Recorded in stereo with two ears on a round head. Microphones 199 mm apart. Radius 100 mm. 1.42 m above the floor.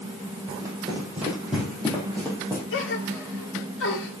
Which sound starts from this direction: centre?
Running footsteps, at 0.5 s.